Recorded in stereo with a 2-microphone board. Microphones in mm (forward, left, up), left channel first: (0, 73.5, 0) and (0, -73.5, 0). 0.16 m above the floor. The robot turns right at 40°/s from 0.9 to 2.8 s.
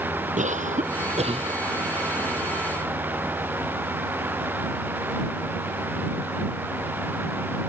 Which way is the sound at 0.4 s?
55° right (ahead or behind).